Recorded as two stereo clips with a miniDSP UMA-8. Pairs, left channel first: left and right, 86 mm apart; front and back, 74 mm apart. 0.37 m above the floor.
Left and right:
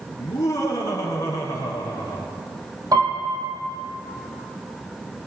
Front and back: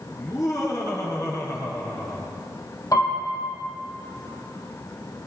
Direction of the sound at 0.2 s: 40° left.